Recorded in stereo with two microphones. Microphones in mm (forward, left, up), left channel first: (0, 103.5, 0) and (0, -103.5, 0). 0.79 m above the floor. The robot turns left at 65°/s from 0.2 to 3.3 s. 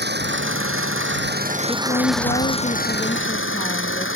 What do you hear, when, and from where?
0.0 s an engine running: 55° right; by 4.2 s 105° left
1.7 s a woman speaking: 140° left; by 4.1 s 35° left